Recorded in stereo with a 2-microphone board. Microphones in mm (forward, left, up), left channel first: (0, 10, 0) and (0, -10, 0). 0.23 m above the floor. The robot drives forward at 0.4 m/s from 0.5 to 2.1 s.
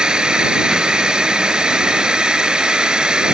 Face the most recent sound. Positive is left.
turn(degrees=-45)  # may be behind; listen again after turning